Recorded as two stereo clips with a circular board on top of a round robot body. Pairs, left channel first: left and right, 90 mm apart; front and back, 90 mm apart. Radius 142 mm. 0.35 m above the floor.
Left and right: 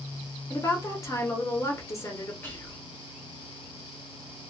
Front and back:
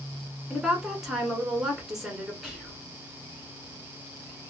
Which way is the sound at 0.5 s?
100° left.